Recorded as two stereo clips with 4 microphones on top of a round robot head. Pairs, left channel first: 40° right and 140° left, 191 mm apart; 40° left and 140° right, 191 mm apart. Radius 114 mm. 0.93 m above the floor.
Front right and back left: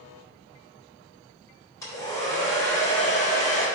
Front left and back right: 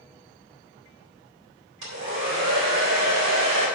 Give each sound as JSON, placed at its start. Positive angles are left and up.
{"t": 1.8, "sound": "a hair dryer", "azimuth_deg": -115, "distance_m": 4.0}